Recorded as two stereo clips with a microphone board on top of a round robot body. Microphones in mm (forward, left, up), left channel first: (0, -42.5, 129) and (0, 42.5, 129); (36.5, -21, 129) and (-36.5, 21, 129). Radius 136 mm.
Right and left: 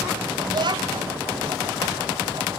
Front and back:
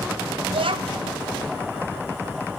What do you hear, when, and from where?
0.5 s a child speaking: 125° left, 2.5 m